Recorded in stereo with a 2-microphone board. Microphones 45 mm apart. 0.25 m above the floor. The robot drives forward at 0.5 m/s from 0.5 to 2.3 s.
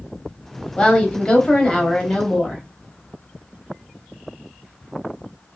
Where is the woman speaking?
20° left (ahead or behind), 1.0 m; by 2.6 s 15° left (ahead or behind), 1.1 m.